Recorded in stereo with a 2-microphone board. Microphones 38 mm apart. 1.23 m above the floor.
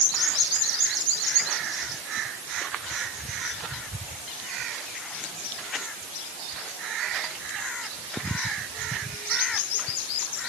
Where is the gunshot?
I don't hear a gunshot.